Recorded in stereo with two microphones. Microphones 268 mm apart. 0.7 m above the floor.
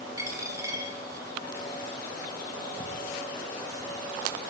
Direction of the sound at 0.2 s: 10° right (ahead or behind).